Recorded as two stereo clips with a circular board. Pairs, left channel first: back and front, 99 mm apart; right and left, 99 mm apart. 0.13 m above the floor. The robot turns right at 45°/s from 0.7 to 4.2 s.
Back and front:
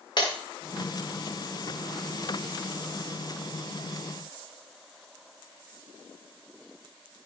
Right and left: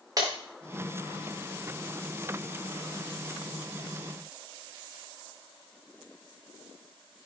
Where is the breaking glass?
140° left, 3.5 m.